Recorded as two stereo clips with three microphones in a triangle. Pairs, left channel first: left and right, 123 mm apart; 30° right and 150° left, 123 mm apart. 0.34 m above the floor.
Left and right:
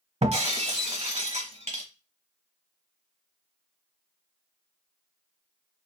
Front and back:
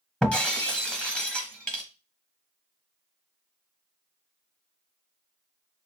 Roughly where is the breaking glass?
Right.